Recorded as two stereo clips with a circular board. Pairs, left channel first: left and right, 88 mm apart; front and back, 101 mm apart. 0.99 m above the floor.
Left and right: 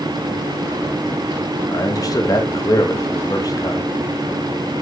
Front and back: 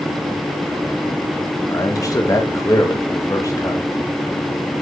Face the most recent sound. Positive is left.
turn(degrees=50)